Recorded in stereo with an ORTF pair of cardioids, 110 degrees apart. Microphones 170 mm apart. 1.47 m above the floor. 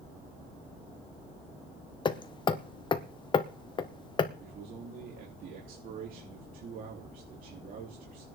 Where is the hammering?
25° left, 1.2 m.